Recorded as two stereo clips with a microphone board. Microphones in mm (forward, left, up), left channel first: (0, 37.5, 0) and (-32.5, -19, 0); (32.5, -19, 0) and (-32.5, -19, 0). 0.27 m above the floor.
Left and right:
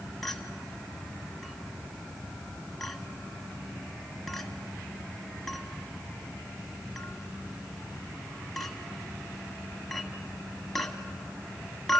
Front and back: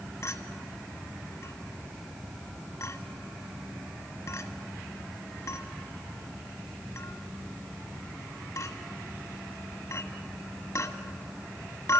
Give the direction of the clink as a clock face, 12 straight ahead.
1 o'clock.